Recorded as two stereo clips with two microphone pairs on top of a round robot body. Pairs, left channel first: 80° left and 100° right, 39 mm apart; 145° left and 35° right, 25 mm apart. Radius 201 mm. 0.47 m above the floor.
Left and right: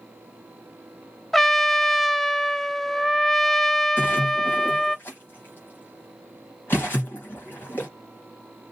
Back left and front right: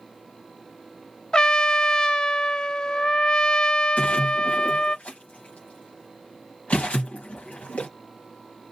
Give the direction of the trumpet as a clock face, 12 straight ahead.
6 o'clock.